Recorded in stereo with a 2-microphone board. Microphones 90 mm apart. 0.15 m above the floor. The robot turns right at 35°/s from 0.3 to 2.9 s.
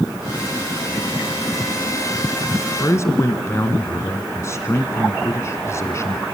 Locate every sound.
2.8 s a man speaking: 30° left (ahead or behind), 1.3 m